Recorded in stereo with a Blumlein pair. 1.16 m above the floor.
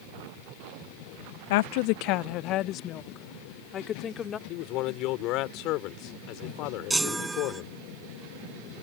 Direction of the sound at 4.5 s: 40° left.